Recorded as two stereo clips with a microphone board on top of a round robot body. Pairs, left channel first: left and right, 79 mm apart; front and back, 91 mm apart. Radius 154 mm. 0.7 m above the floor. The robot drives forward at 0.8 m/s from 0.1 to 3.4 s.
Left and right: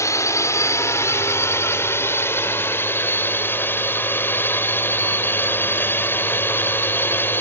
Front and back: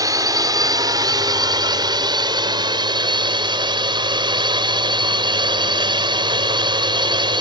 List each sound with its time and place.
0.0 s a drone: 135° left; by 7.4 s 150° left